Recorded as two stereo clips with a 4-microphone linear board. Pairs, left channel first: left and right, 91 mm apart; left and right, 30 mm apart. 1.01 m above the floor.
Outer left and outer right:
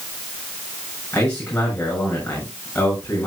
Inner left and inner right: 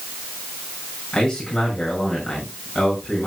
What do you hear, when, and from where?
1.1 s a man speaking: 15° left (ahead or behind), 7 m